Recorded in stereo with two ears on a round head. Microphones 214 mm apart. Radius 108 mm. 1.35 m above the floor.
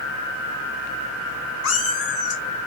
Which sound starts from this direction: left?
A cat meowing, at 1.6 s.